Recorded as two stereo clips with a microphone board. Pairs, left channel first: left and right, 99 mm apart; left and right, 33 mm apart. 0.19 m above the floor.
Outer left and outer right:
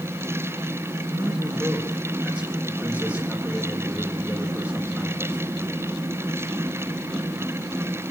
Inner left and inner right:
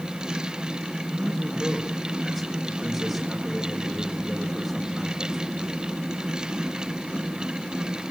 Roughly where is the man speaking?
Centre.